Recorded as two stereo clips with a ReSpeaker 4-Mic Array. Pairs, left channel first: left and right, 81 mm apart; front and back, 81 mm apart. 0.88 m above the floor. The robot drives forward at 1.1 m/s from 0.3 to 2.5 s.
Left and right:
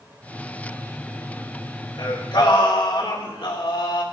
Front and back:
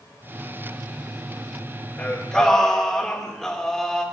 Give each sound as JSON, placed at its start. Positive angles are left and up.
{"t": 2.0, "sound": "singing", "azimuth_deg": 70, "distance_m": 2.5}